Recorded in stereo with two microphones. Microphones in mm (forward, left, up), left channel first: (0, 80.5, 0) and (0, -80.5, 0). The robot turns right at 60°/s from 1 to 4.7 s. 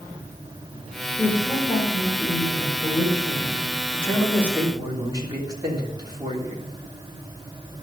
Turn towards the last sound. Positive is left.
turn(degrees=-155)